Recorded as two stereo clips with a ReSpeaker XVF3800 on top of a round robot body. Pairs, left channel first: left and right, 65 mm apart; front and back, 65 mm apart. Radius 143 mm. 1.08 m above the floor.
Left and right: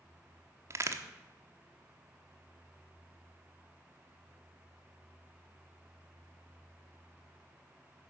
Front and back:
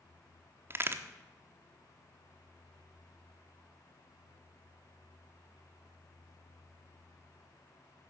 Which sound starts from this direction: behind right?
A crack, at 0.7 s.